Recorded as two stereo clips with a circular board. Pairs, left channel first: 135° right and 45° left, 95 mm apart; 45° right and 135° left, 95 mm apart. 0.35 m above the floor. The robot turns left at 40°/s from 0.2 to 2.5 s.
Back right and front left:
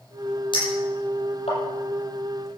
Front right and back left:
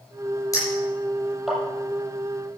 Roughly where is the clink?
Right.